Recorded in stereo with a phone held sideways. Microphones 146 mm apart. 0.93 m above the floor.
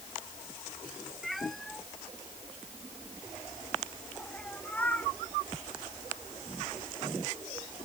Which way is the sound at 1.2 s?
Centre (ahead or behind).